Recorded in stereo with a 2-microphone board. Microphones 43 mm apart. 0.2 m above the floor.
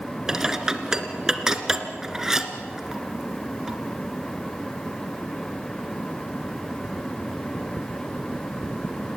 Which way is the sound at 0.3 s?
10° right (ahead or behind).